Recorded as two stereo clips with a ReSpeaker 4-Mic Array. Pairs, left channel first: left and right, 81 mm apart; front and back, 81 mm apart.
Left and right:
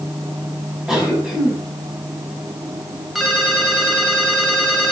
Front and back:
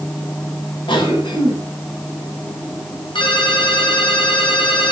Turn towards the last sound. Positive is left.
turn(degrees=0)